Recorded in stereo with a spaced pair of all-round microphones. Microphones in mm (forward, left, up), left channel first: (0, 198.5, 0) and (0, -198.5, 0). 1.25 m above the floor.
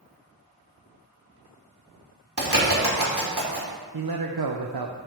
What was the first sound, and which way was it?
A bird, 70° right (ahead or behind).